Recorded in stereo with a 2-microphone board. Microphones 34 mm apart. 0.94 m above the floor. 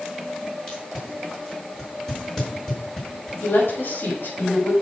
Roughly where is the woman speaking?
Left.